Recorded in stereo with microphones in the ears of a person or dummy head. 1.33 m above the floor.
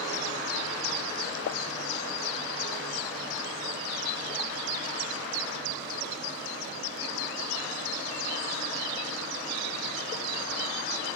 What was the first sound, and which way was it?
A pop, 55° left (ahead or behind).